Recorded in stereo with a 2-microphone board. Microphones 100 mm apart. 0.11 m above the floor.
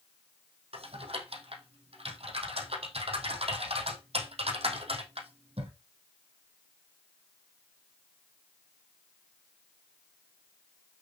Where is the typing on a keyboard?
70° right (ahead or behind), 3 m.